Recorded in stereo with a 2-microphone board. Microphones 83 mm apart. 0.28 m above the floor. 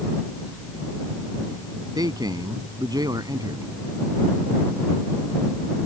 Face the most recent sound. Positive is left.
turn(degrees=-55)  # may be behind; listen again after turning